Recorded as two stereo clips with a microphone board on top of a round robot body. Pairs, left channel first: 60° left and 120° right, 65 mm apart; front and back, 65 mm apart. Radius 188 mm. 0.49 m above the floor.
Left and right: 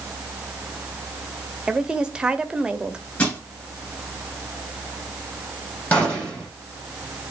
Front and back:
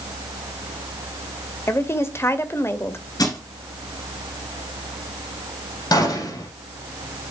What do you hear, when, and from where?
1.7 s a woman speaking: 45° right, 1.6 m
3.2 s crushing: 5° right, 7.5 m
5.9 s a gunshot: 5° right, 6 m